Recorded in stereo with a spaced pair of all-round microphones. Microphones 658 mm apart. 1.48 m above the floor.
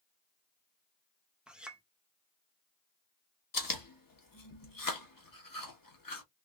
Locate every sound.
1.5 s a clink: centre (ahead or behind), 0.8 m
3.5 s chewing: 30° left (ahead or behind), 1.2 m